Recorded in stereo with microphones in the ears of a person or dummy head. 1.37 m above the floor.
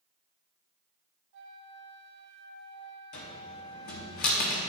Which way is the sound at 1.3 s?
65° right (ahead or behind).